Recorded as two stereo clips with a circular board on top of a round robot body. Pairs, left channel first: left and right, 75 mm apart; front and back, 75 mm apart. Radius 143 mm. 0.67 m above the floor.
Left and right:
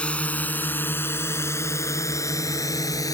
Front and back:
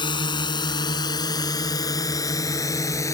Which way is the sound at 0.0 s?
15° left.